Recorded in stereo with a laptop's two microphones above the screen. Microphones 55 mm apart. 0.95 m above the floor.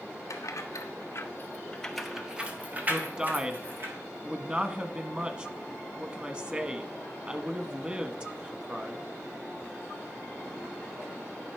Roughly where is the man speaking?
Right.